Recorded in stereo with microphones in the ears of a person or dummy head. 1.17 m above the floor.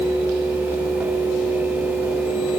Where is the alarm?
I don't hear an alarm.